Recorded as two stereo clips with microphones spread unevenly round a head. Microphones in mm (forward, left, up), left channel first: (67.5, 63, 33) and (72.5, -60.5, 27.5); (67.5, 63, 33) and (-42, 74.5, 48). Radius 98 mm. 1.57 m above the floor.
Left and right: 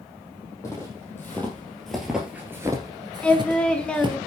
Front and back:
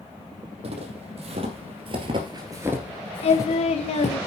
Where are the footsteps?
165° left, 4 m; by 4.2 s 50° right, 2.5 m.